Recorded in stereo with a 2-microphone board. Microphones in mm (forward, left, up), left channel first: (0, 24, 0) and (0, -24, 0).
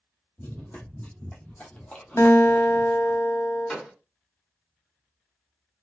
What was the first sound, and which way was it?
Running footsteps, 35° left (ahead or behind).